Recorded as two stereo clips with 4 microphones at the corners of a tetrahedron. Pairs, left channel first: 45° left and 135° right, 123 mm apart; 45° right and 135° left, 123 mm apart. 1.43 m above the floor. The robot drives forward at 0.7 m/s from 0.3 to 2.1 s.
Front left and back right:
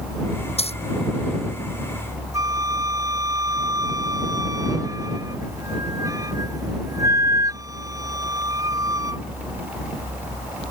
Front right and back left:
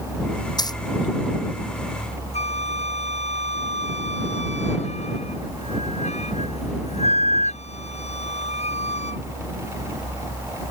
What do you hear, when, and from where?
0.6 s a dropped coin: 10° left; by 0.8 s 15° left
2.3 s a flute: 70° right